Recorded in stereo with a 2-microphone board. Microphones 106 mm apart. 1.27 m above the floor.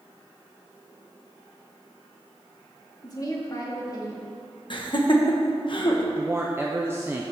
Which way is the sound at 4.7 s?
50° left (ahead or behind).